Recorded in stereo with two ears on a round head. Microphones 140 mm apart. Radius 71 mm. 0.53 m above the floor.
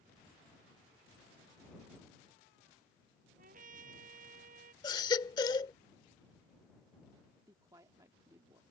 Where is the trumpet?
60° right (ahead or behind).